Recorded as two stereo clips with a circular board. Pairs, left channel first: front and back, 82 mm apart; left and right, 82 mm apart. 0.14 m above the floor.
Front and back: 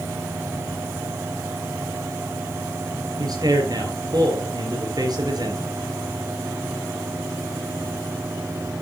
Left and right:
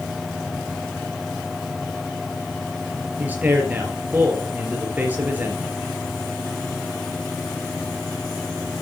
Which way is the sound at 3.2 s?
155° right.